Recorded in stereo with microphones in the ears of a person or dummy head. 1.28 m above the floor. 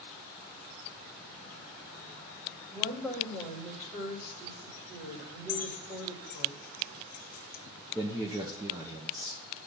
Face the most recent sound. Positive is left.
turn(degrees=-15)  # may be behind; listen again after turning